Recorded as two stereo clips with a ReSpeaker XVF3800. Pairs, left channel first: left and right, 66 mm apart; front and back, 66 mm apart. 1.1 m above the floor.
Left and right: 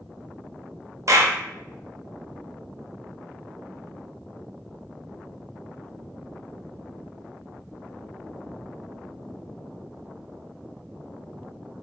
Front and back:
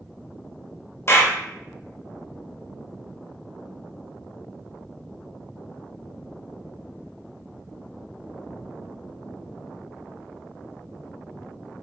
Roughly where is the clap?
Ahead right.